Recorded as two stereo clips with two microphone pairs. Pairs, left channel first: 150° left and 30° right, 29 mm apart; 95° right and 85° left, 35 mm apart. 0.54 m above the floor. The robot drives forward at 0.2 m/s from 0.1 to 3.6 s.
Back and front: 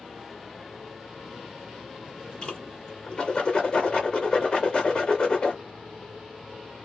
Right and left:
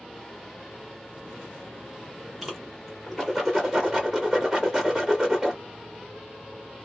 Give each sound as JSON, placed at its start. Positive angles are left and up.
{"t": 2.4, "sound": "a whoosh", "azimuth_deg": 170, "distance_m": 1.5}